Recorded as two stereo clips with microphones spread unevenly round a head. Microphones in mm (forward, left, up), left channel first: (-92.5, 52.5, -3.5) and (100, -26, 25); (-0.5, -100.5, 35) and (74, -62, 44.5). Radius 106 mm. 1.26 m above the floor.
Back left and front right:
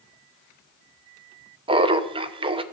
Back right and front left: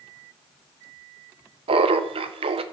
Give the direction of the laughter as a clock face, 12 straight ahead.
10 o'clock.